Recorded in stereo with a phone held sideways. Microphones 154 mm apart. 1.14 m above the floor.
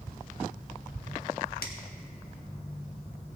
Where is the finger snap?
85° left, 1.5 m.